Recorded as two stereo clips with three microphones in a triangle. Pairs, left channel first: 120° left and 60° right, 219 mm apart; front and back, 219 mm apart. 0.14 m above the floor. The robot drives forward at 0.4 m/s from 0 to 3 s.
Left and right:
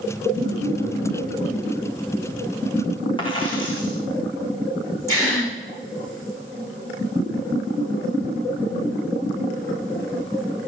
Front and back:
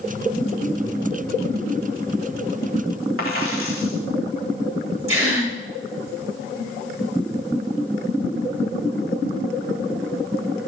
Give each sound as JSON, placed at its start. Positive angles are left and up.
{"t": 3.2, "sound": "a dropped coin", "azimuth_deg": -175, "distance_m": 3.5}
{"t": 5.1, "sound": "a gasp", "azimuth_deg": -165, "distance_m": 7.0}